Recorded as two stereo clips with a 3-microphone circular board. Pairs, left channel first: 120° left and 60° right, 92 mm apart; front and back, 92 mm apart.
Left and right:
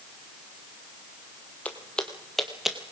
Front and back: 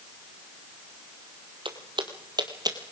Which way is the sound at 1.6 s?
170° right.